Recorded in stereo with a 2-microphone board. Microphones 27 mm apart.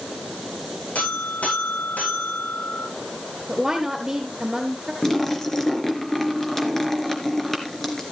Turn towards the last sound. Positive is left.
turn(degrees=15)  # may be behind; listen again after turning